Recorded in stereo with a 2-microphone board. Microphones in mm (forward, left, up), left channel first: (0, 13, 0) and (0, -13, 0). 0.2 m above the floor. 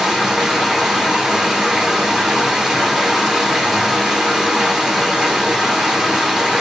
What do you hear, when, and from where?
0.0 s running water: 20° right (ahead or behind), 1.2 m